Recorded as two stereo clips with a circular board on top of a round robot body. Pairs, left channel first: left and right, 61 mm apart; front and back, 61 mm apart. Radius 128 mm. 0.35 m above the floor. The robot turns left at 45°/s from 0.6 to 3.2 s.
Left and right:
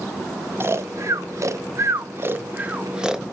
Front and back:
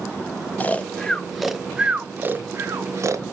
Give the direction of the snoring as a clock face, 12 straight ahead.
2 o'clock.